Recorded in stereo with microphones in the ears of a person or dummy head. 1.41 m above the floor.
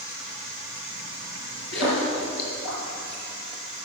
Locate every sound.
1.7 s a splash: 70° left (ahead or behind), 5 m